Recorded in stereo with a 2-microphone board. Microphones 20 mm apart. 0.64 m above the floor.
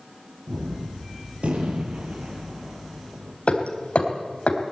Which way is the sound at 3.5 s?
75° left (ahead or behind).